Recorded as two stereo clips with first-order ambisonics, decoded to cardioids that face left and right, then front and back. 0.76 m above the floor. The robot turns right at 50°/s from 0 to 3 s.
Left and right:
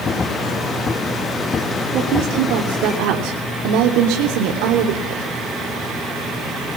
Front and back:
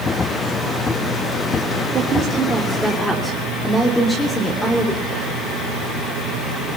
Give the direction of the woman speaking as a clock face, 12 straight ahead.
4 o'clock.